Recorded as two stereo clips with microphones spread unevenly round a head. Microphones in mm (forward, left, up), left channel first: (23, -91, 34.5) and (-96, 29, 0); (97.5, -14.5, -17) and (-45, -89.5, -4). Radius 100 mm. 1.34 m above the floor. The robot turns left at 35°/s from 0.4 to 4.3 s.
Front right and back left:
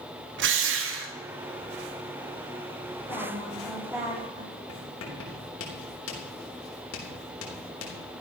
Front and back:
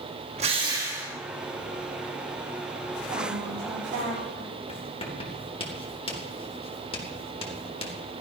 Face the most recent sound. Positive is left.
turn(degrees=-30)